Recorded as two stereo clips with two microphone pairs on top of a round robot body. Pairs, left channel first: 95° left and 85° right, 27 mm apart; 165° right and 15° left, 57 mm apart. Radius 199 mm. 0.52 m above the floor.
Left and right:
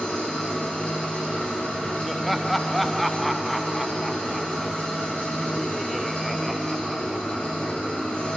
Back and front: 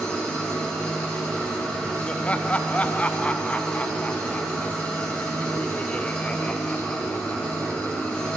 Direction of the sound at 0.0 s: 130° left.